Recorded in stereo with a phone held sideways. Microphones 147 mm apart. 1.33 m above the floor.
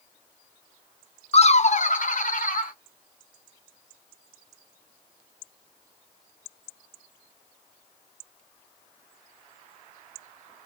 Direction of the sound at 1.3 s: 45° left (ahead or behind).